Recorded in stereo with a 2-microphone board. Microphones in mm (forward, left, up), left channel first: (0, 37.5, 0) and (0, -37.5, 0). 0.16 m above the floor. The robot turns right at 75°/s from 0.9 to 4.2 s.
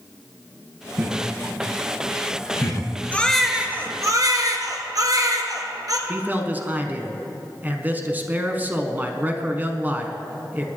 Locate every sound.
1.0 s laughter: 35° right (ahead or behind), 1.6 m; by 2.9 s 45° left (ahead or behind), 1.6 m
3.1 s a baby crying: 160° left, 1.4 m; by 6.0 s 120° right, 1.4 m
6.1 s a man speaking: 25° right (ahead or behind), 1.2 m